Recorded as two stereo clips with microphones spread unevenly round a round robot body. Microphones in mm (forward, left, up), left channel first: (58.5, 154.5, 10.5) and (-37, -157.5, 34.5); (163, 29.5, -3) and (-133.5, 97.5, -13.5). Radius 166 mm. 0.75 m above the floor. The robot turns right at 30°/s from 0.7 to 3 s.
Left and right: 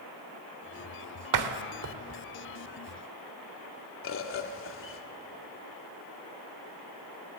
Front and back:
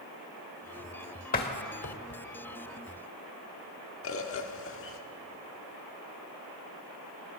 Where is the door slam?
80° right, 1.6 m; by 2.2 s 50° right, 1.6 m.